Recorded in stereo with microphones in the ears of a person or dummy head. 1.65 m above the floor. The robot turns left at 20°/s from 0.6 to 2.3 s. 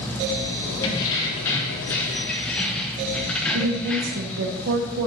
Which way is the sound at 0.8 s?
20° left (ahead or behind).